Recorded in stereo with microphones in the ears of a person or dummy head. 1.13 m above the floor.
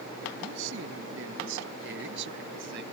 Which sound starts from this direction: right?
A man speaking, at 0.3 s.